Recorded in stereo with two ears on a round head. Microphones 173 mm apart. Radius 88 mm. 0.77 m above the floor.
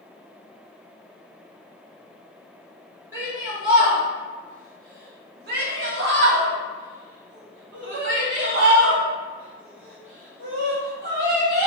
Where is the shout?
15° right (ahead or behind), 1.7 m; by 11.7 s 65° right (ahead or behind), 4 m.